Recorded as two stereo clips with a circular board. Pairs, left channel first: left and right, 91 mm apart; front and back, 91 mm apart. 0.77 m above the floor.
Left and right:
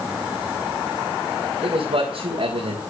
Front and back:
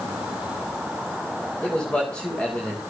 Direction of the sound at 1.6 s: 80° right.